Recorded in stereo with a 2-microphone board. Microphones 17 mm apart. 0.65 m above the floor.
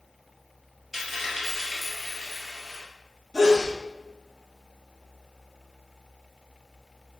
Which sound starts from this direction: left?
A sneeze, at 3.3 s.